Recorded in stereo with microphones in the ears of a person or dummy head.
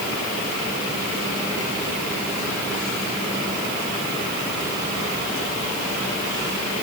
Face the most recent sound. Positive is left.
No sound to turn to.